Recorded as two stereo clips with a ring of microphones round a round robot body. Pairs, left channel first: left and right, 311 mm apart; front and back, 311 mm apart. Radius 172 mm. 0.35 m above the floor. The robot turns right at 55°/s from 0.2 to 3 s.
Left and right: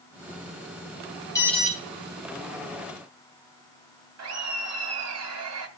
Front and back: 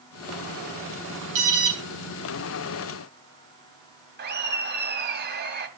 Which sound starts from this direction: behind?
An alarm, at 1.4 s.